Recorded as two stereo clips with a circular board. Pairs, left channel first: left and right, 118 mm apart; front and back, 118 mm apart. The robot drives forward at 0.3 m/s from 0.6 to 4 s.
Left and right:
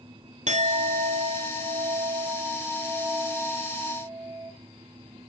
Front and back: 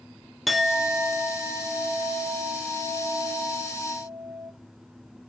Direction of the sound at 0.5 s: 90° right.